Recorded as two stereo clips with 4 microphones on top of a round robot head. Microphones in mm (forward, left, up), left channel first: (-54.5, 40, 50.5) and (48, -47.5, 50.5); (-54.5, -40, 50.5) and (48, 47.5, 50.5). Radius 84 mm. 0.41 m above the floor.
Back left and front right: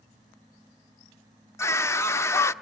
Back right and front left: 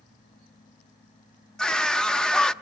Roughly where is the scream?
Behind left.